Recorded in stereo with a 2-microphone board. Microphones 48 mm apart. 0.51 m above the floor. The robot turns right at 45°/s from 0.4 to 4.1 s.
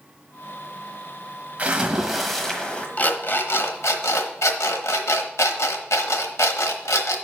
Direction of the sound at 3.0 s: 35° left (ahead or behind).